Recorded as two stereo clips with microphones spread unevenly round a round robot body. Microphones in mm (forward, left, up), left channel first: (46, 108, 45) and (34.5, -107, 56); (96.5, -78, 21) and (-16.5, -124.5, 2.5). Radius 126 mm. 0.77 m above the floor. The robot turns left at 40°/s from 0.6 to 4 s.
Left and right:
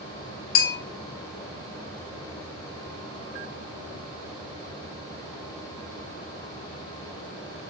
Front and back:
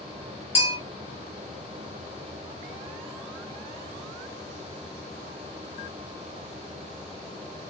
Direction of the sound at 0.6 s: 40° left.